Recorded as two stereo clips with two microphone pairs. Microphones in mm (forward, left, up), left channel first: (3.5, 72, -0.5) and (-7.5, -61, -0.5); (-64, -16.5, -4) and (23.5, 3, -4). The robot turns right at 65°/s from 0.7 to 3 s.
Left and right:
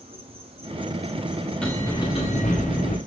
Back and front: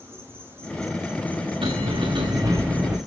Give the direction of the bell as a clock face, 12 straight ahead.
12 o'clock.